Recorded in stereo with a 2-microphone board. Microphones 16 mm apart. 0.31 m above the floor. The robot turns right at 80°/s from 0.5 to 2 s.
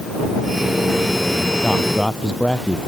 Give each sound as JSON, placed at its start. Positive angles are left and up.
{"t": 1.6, "sound": "a man speaking", "side_deg": 80}